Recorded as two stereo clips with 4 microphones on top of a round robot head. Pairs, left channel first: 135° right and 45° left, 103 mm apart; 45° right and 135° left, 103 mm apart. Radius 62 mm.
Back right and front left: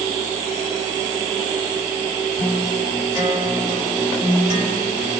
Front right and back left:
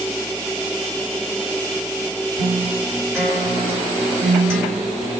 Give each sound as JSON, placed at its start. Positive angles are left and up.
{"t": 2.4, "sound": "a guitar", "azimuth_deg": -155, "distance_m": 2.0}